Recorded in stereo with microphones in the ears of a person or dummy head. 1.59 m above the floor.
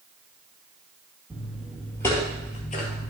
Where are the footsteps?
5° right (ahead or behind), 2.5 m; by 3.1 s 45° left (ahead or behind), 2 m.